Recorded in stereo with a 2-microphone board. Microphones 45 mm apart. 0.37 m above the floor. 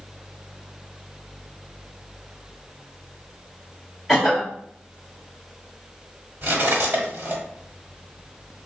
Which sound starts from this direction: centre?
A cough, at 4.1 s.